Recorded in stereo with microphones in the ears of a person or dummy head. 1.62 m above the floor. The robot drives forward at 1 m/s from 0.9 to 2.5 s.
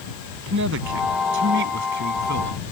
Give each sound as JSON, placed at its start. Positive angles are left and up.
{"t": 0.5, "sound": "a man speaking", "side_deg": -65}